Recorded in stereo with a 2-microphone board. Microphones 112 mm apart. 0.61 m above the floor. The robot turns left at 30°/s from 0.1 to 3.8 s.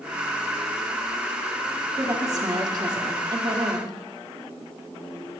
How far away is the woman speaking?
About 1.4 m.